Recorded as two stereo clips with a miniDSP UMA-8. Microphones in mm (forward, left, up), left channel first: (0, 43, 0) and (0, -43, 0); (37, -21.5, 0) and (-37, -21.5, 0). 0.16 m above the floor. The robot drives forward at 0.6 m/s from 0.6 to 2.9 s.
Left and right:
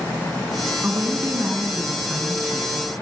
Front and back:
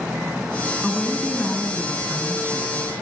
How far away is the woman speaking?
About 1.6 m.